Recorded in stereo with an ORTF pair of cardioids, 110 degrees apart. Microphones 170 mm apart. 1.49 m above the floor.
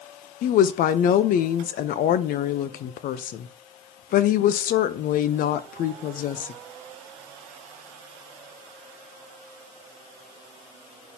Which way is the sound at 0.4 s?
60° left.